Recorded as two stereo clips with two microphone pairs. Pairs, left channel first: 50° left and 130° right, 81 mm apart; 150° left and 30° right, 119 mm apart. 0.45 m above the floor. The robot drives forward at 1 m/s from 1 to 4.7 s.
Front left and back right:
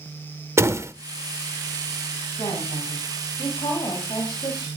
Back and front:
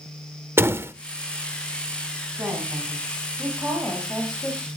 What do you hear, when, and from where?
0.6 s a door slam: 95° right, 0.9 m
2.4 s a woman speaking: 40° left, 4.5 m; by 4.7 s 65° left, 3.5 m